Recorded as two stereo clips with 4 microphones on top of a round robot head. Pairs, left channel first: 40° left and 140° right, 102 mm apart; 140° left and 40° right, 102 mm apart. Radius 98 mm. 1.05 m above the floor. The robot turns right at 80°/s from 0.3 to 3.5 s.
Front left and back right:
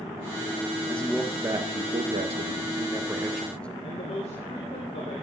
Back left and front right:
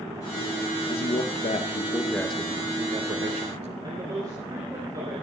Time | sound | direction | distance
0.9 | a man speaking | 110° left | 0.9 m
3.8 | a man speaking | 15° left | 3.5 m